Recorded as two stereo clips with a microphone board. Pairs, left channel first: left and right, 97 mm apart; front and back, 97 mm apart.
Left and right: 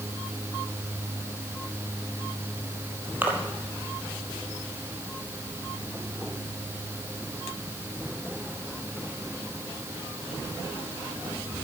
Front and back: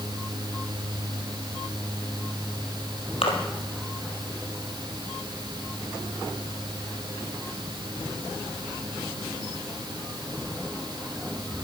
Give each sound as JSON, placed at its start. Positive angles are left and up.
{"t": 3.2, "sound": "a splash", "azimuth_deg": -20, "distance_m": 2.0}